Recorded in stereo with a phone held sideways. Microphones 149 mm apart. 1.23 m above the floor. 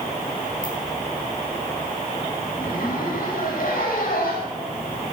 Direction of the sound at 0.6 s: 75° left (ahead or behind).